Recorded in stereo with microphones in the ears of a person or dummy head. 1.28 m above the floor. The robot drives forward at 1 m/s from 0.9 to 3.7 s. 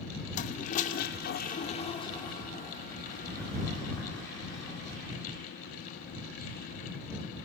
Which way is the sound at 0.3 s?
45° left (ahead or behind).